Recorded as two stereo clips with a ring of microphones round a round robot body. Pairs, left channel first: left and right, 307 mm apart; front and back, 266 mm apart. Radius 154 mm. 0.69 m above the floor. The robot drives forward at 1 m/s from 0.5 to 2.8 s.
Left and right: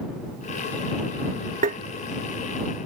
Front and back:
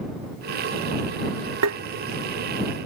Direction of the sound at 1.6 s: 150° right.